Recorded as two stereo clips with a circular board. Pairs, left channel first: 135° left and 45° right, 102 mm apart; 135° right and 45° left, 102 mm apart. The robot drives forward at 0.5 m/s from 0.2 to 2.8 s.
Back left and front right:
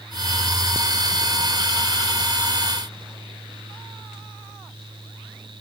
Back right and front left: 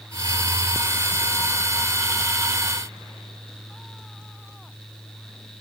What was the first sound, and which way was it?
Only background noise.